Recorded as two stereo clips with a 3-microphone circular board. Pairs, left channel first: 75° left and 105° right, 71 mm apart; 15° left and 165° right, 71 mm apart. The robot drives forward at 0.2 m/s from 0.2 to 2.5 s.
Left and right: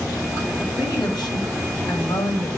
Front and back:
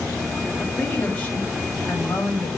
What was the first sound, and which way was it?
A woman speaking, 85° left.